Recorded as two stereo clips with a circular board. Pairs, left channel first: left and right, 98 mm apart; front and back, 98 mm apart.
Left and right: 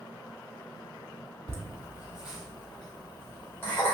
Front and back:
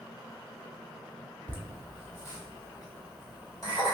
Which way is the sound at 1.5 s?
55° right.